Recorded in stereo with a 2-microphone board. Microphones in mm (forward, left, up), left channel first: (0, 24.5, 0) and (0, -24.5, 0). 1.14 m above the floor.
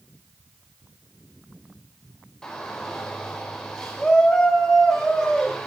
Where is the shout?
10° left (ahead or behind), 4 m.